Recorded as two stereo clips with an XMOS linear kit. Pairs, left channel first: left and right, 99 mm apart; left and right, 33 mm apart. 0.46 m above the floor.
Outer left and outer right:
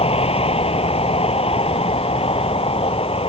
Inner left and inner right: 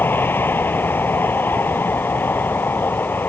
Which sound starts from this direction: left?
A vehicle, at 0.0 s.